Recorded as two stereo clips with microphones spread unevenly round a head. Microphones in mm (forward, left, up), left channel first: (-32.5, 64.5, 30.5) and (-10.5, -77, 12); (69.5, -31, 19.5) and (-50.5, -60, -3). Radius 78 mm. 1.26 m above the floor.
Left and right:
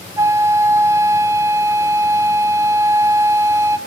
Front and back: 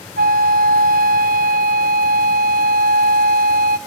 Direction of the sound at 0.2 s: 155° right.